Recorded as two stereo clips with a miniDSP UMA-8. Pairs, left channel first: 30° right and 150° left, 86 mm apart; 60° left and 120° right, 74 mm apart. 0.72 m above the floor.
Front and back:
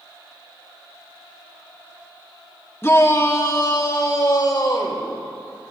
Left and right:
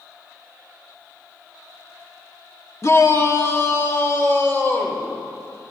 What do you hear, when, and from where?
2.8 s a shout: 25° left, 1.1 m; by 5.1 s 5° left, 2.5 m